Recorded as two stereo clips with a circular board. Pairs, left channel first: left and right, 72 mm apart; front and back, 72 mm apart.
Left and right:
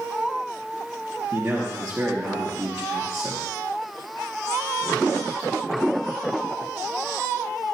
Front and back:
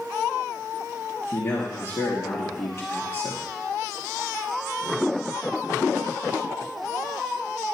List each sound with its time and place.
1.3 s a man speaking: 25° right, 2 m